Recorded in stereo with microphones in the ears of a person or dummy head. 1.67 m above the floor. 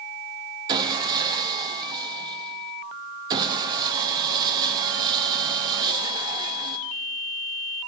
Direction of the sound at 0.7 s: 25° right (ahead or behind).